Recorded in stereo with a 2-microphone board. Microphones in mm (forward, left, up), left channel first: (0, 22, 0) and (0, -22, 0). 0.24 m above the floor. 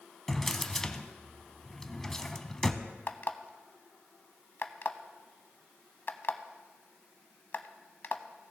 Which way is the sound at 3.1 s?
50° left (ahead or behind).